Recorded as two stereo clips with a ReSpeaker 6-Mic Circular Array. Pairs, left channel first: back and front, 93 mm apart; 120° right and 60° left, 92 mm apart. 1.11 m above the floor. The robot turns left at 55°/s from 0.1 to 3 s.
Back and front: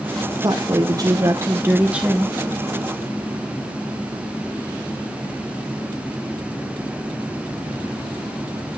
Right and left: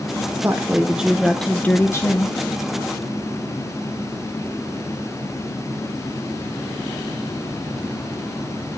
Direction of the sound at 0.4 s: 15° left.